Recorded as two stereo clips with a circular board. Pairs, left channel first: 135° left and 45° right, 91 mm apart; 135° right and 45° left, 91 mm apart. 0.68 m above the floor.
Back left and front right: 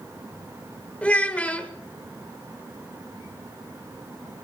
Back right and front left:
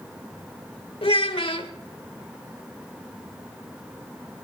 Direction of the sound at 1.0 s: 150° right.